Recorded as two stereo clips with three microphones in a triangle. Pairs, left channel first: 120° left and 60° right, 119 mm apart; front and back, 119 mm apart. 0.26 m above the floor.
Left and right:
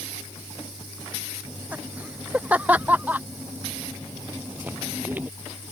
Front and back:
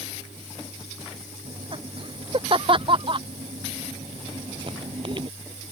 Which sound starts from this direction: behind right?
Laughter, at 1.4 s.